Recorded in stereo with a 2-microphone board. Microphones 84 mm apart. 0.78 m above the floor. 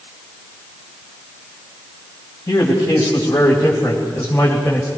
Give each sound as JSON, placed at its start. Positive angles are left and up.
{"t": 2.5, "sound": "a man speaking", "side_deg": 40, "distance_m": 4.0}